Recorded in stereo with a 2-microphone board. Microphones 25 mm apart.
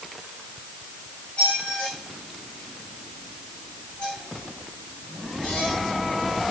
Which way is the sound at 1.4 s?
50° left (ahead or behind).